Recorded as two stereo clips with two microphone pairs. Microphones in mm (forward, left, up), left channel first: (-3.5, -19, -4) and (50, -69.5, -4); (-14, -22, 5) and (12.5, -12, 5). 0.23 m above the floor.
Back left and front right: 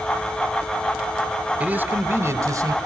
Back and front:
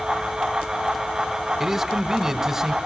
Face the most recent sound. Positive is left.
turn(degrees=-45)